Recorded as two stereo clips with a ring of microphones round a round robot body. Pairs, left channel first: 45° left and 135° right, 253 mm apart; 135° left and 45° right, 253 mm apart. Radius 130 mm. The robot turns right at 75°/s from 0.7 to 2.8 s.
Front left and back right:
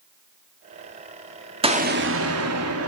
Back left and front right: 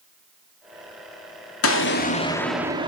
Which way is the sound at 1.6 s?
160° left.